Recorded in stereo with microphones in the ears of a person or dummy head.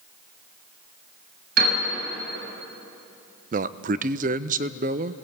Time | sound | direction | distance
1.6 | a piano | 70° right (ahead or behind) | 7 m
3.5 | a man speaking | 35° right (ahead or behind) | 0.5 m